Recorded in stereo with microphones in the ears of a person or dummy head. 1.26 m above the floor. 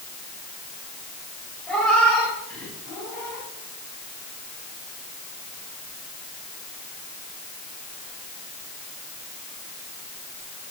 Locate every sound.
1.7 s a cat meowing: 5° left (ahead or behind), 1.9 m; by 3.5 s 10° left (ahead or behind), 4 m